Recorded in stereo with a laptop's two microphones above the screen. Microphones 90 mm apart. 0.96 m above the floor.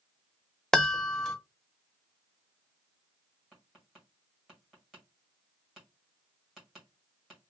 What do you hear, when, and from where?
0.7 s a chime: 5° left (ahead or behind), 0.7 m
3.5 s tapping: 5° right (ahead or behind), 1.7 m